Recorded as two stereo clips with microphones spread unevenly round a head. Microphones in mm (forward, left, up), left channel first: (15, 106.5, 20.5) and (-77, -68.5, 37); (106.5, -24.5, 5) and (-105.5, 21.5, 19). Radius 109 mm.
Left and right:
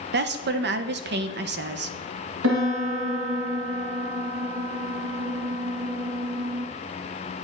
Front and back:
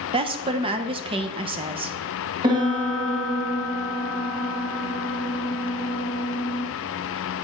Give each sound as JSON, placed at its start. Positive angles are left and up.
{"t": 0.1, "sound": "a woman speaking", "azimuth_deg": -130, "distance_m": 0.6}
{"t": 2.4, "sound": "a piano", "azimuth_deg": -120, "distance_m": 1.7}